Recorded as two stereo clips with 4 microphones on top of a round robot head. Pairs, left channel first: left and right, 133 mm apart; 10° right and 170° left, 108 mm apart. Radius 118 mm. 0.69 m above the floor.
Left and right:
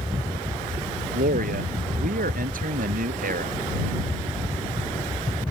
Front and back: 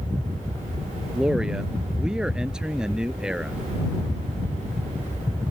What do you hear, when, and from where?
1.1 s a man speaking: 105° right